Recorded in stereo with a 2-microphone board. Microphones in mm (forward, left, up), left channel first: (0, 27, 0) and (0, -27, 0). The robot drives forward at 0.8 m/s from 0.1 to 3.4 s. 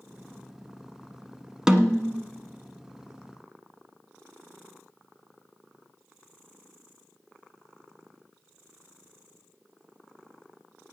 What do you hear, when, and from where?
1.7 s a snare drum: 10° right (ahead or behind), 1.1 m